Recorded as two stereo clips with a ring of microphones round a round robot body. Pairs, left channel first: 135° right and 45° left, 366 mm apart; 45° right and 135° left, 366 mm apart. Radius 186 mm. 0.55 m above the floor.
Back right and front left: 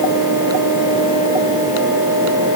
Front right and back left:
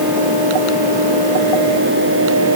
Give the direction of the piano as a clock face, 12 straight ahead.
I don't hear a piano.